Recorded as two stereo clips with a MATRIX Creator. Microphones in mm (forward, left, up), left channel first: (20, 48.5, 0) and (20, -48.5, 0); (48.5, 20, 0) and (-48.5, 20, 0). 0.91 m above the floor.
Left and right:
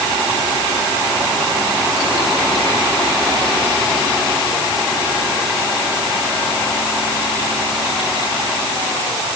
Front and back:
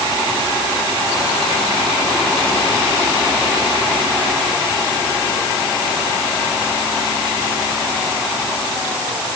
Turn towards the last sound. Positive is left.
No sound to turn to.